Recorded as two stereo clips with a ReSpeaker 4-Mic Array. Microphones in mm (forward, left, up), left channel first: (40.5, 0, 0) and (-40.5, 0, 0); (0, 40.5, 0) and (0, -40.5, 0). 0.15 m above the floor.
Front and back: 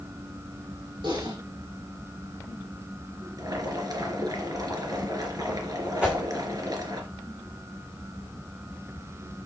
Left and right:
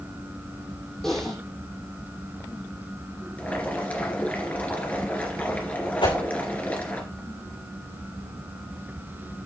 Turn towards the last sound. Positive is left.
turn(degrees=105)